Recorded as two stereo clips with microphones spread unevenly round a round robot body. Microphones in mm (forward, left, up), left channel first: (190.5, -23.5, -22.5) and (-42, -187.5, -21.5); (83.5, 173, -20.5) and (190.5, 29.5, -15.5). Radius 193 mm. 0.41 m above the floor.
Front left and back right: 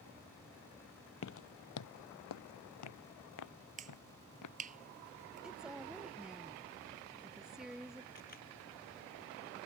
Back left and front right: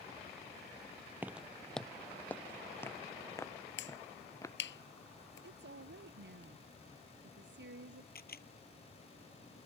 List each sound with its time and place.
1.2 s footsteps: 20° left; by 4.6 s 55° left
3.8 s a finger snap: 145° left
5.4 s a woman speaking: 55° right
8.2 s a camera shutter: 100° left